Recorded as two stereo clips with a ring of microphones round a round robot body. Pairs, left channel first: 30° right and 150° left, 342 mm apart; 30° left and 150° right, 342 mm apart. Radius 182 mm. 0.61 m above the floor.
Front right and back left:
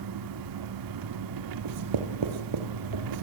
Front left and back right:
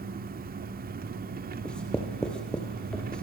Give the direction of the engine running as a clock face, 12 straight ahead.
7 o'clock.